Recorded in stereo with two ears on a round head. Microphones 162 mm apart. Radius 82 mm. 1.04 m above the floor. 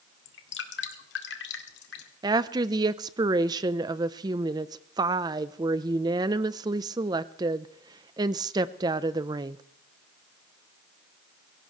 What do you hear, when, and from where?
0.2 s dripping: 80° left, 2.0 m
2.2 s a woman speaking: 25° right (ahead or behind), 0.6 m